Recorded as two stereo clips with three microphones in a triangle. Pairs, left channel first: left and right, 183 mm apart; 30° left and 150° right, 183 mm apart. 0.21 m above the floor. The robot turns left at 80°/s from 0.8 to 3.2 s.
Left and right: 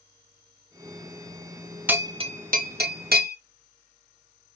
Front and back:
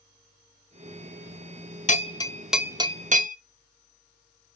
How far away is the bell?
About 0.6 m.